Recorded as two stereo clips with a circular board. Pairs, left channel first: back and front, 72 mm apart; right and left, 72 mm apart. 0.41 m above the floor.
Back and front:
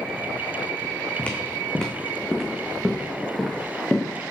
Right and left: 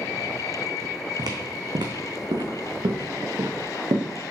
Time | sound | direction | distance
1.2 | footsteps | 110° left | 1.6 m